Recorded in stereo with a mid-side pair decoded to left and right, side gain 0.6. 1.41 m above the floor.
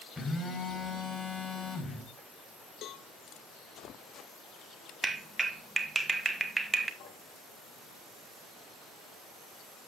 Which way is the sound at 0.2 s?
20° left.